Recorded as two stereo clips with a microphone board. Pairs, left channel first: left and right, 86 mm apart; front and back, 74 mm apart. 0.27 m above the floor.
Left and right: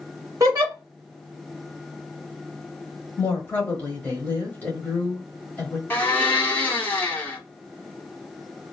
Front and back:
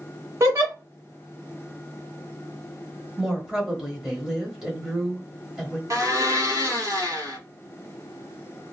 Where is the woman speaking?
100° left, 1.2 m.